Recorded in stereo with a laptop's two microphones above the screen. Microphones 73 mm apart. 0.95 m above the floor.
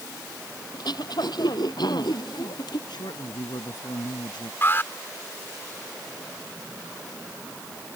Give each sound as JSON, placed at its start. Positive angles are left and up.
{"t": 0.7, "sound": "throat clearing", "side_deg": 70}
{"t": 2.9, "sound": "a man speaking", "side_deg": 80}
{"t": 4.6, "sound": "an alarm", "side_deg": 30}